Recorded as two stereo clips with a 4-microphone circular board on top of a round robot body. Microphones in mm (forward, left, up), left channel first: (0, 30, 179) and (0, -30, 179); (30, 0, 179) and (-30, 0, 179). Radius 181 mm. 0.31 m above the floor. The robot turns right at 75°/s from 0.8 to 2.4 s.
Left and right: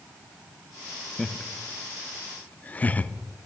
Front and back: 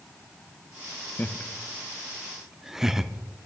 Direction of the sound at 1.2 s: 15° left.